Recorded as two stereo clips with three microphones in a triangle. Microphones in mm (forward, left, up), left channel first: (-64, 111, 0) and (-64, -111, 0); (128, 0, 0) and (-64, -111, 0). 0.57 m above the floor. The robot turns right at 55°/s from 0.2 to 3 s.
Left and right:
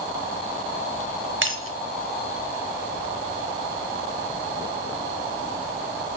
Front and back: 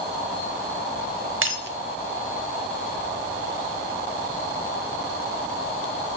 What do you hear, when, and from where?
1.4 s breaking glass: 125° right, 0.7 m; by 1.8 s 105° right, 0.7 m